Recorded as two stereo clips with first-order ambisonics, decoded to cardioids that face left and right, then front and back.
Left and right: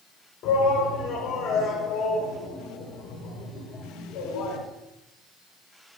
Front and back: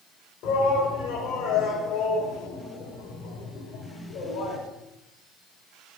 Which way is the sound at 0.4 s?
45° left.